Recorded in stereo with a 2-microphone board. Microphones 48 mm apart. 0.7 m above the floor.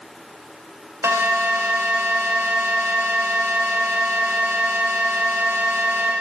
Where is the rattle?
No rattle in this recording.